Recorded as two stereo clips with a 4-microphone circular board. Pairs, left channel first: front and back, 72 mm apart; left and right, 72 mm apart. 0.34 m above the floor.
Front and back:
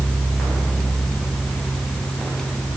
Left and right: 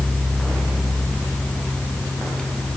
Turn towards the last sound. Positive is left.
No sound to turn to.